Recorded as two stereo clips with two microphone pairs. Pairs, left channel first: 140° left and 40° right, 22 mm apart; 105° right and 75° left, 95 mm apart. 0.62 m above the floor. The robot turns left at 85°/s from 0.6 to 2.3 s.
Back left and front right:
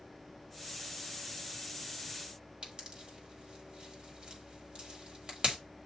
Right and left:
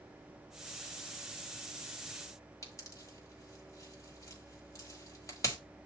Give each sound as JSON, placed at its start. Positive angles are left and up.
{"t": 2.6, "sound": "a pop", "azimuth_deg": -65, "distance_m": 1.6}